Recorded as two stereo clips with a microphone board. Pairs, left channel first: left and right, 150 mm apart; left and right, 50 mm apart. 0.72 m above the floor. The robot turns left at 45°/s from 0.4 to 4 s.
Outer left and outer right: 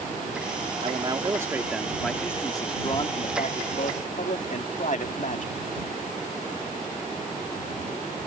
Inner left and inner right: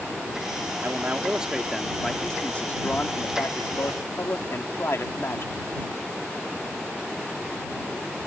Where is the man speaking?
130° right; by 5.5 s 85° left.